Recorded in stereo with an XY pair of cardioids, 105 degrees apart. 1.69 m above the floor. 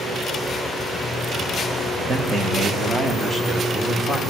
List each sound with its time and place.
2.1 s a man speaking: 45° right, 2 m; by 4.2 s 25° right, 3.5 m